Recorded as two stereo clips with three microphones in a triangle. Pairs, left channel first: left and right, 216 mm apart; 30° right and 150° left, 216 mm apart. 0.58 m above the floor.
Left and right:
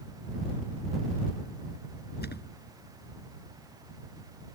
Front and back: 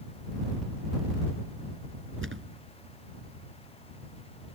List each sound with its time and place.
2.2 s a thud: 130° left